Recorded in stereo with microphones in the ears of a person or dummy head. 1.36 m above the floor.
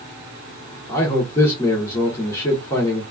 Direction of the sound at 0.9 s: 15° left (ahead or behind).